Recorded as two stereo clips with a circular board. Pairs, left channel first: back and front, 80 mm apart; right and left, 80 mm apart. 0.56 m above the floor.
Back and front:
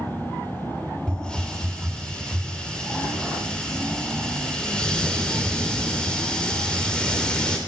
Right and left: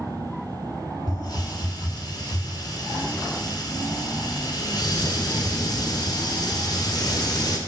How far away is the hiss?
About 2 m.